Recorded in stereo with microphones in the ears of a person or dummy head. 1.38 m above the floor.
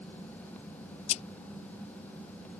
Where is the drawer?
I don't hear a drawer.